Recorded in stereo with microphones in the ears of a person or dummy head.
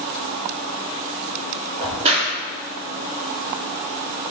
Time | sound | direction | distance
1.8 | a crack | 30° right (ahead or behind) | 1.9 m